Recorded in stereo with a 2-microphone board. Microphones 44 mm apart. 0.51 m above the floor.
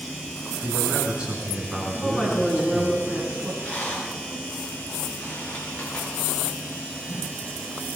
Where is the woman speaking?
5° right (ahead or behind), 6 m.